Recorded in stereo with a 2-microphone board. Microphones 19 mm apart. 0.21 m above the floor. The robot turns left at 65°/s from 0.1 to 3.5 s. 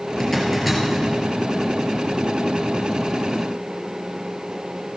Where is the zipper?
30° left (ahead or behind), 2.5 m; by 1.1 s 25° right (ahead or behind), 2.5 m.